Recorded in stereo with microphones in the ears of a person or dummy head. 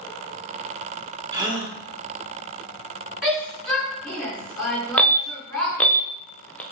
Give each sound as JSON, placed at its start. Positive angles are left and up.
{"t": 1.3, "sound": "a gasp", "side_deg": -25, "distance_m": 2.5}
{"t": 3.2, "sound": "a shout", "side_deg": 0, "distance_m": 4.0}
{"t": 5.0, "sound": "an alarm", "side_deg": 10, "distance_m": 0.7}